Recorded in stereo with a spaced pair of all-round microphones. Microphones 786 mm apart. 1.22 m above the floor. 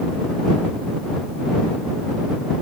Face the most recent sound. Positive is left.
No sound to turn to.